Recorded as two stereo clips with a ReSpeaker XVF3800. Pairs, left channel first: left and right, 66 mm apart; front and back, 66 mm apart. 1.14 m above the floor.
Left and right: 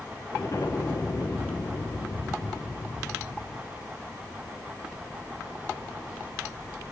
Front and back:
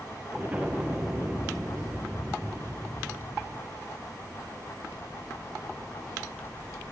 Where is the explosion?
115° left, 0.9 m.